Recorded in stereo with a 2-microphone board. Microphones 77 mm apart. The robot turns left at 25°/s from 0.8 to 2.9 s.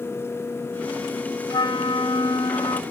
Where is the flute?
105° left, 1.0 m; by 2.8 s 75° left, 1.0 m.